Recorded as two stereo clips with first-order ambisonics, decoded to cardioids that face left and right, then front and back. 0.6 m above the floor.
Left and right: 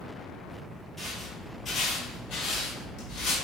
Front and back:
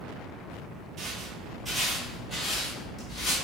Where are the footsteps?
175° left, 0.7 m; by 3.4 s 55° left, 1.3 m.